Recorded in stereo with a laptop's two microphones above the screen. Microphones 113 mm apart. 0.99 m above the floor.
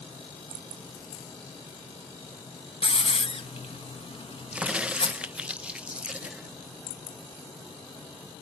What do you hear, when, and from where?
2.8 s a hiss: 55° left (ahead or behind), 1.4 m
4.5 s a crack: 10° right (ahead or behind), 0.7 m